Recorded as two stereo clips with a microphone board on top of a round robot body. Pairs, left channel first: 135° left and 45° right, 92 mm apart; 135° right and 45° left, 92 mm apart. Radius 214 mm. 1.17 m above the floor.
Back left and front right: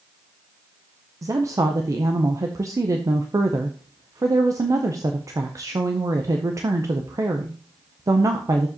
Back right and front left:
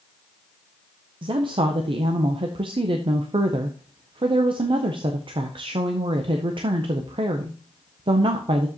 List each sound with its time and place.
1.2 s a woman speaking: 10° left, 0.6 m